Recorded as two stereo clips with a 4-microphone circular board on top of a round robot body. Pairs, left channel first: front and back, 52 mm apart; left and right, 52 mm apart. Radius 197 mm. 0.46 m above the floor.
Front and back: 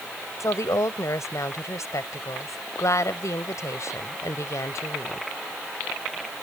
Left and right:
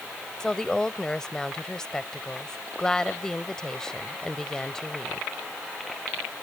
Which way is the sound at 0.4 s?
10° left.